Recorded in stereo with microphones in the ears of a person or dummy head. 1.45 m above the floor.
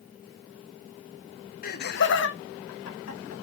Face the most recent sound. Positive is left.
turn(degrees=80)